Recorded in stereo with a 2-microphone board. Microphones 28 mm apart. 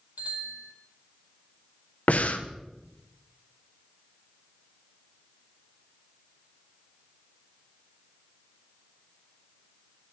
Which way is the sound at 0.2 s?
70° right (ahead or behind).